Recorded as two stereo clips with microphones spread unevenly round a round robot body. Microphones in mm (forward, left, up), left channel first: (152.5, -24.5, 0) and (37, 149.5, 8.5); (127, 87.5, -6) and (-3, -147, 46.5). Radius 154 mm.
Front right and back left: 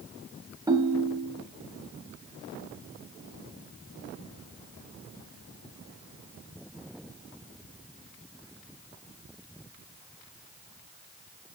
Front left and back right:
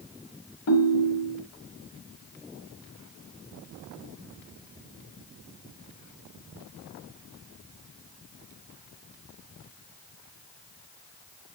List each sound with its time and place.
0.7 s a ringtone: 50° left, 1.5 m